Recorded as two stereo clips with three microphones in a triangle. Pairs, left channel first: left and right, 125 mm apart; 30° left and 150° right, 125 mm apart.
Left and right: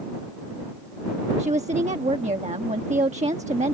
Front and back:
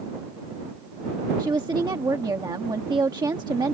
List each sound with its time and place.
1.4 s a woman speaking: 95° right